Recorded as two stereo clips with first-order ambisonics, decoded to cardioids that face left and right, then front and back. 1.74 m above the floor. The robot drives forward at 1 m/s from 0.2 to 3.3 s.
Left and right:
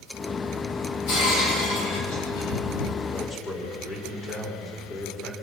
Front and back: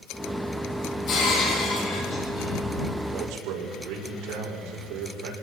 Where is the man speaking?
150° left, 5.5 m; by 5.3 s 155° left, 5.5 m.